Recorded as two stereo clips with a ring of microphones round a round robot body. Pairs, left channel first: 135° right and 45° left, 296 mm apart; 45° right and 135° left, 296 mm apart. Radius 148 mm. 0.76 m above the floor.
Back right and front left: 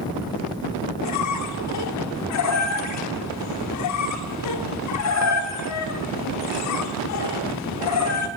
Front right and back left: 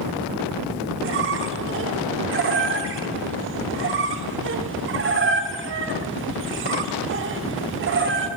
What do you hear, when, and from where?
1.0 s a squeak: 170° right, 1.1 m